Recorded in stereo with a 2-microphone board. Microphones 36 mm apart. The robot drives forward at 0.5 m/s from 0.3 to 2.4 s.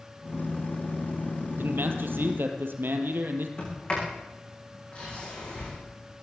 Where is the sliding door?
25° left (ahead or behind), 9 m.